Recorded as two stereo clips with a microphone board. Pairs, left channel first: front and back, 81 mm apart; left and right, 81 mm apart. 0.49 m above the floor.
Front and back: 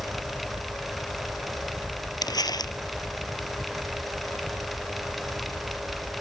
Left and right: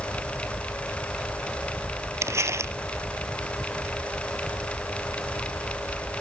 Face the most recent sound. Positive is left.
turn(degrees=-35)